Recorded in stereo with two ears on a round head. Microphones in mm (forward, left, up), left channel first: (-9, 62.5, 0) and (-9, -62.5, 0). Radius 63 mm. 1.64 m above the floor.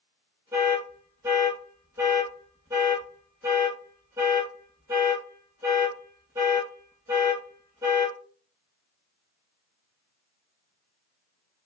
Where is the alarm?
20° right (ahead or behind), 1.4 m.